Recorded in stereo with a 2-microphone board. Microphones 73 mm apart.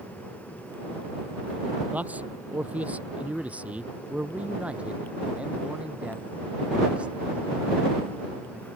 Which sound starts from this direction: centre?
A man speaking, at 1.9 s.